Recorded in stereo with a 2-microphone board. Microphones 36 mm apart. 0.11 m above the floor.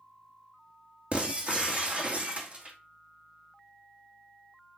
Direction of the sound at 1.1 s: 35° right (ahead or behind).